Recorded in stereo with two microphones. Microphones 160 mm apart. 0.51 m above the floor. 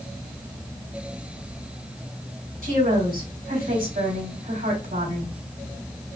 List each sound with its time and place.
2.6 s a woman speaking: 70° right (ahead or behind), 3 m